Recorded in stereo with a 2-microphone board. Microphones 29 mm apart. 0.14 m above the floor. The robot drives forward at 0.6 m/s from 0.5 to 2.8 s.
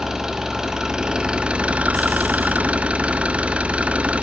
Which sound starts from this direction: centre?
An engine running, at 0.0 s.